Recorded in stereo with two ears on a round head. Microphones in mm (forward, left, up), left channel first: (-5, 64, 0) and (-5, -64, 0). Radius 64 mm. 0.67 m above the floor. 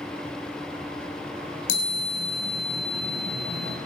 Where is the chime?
85° left, 4 m.